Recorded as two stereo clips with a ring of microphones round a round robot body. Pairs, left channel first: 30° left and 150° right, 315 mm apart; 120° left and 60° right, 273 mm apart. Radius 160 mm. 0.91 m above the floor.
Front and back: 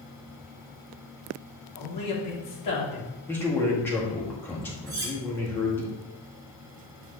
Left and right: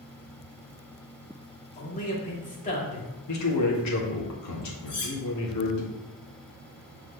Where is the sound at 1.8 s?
60° left, 2.5 m.